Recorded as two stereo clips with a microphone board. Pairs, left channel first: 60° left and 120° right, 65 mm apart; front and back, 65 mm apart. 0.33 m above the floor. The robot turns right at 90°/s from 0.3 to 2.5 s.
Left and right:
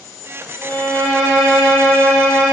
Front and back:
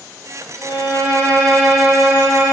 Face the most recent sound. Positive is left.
turn(degrees=165)